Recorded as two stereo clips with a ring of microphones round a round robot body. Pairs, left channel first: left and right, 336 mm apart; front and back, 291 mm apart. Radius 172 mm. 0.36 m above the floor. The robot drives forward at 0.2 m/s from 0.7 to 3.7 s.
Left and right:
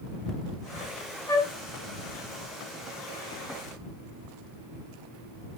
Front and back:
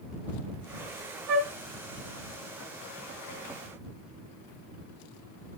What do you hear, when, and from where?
1.3 s a flute: 170° left, 1.0 m; by 1.5 s 175° left, 1.0 m